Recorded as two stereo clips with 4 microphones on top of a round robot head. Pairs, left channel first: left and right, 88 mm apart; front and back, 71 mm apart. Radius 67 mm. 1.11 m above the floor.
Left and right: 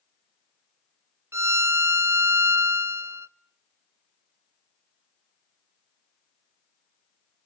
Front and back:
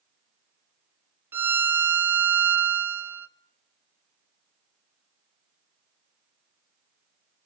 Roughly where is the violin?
Behind right.